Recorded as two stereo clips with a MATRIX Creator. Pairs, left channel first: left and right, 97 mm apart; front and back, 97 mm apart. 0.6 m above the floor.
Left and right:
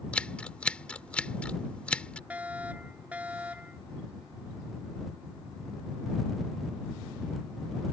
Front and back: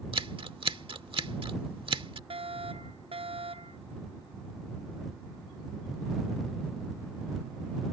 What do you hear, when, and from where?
0.1 s scissors: 165° left
2.3 s a fire alarm: 165° right